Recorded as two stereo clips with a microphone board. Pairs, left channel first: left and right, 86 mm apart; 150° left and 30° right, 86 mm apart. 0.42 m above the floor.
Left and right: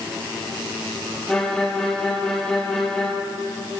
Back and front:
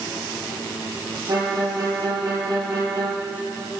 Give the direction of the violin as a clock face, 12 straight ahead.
12 o'clock.